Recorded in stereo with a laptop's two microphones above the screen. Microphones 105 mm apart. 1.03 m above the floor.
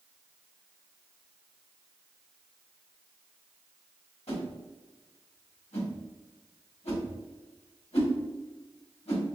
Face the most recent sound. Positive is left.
turn(degrees=75)  # may be behind; listen again after turning